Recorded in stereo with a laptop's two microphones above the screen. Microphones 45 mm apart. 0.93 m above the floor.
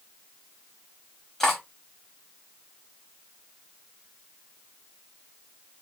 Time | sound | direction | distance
1.4 | cutlery clinking | 10° left (ahead or behind) | 0.8 m